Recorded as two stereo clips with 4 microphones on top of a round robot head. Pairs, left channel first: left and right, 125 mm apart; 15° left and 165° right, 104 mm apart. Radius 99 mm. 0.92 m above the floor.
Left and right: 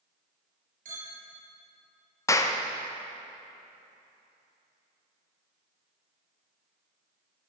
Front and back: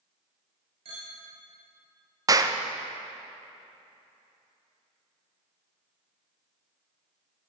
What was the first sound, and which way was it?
A clink, 120° right.